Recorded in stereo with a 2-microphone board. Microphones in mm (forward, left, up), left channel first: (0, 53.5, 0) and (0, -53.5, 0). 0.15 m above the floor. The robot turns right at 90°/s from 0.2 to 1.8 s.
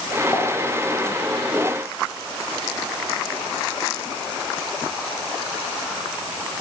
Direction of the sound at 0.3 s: 20° left (ahead or behind).